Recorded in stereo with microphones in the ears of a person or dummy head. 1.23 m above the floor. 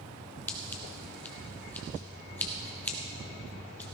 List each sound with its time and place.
0.5 s scissors: 10° left (ahead or behind), 1.2 m